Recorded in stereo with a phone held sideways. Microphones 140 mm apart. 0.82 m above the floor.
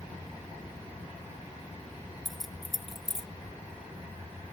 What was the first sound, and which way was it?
Keys jangling, centre (ahead or behind).